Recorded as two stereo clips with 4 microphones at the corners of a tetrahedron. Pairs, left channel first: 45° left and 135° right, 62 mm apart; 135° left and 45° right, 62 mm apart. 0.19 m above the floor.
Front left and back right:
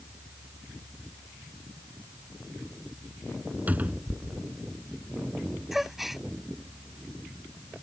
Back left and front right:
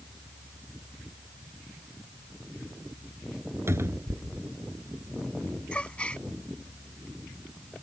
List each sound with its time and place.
3.7 s a cupboard door: 75° right
5.7 s a gasp: 150° left